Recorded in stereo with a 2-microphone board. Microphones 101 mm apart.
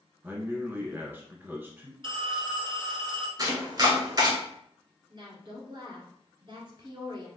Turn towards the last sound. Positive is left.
turn(degrees=-45)  # may be behind; listen again after turning